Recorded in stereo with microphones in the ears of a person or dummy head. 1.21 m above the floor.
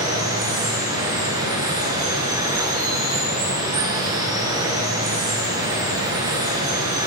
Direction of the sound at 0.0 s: 20° right (ahead or behind).